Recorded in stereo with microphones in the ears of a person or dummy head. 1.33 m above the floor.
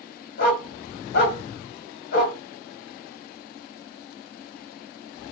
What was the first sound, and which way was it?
A dog barking, 50° left (ahead or behind).